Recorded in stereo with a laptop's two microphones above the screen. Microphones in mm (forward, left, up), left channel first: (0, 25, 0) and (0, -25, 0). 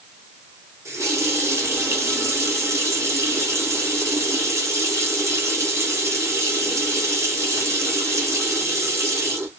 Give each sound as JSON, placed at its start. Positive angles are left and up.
{"t": 0.8, "sound": "a running tap", "side_deg": -80, "distance_m": 1.1}